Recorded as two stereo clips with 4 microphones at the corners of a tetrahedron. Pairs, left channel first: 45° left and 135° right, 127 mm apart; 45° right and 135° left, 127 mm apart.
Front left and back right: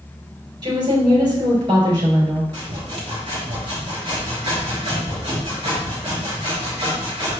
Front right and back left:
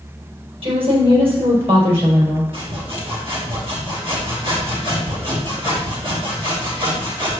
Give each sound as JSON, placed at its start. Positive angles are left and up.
{"t": 0.6, "sound": "a woman speaking", "azimuth_deg": 175, "distance_m": 4.0}
{"t": 2.5, "sound": "sawing", "azimuth_deg": 175, "distance_m": 4.0}